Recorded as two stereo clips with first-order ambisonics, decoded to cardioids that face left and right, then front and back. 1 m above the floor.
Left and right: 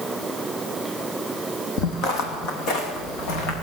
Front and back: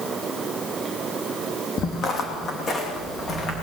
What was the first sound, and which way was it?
Footsteps, 50° left.